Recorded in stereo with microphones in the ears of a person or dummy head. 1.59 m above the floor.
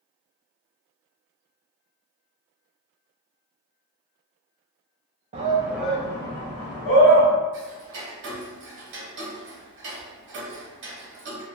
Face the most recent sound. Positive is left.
turn(degrees=-60)  # may be behind; listen again after turning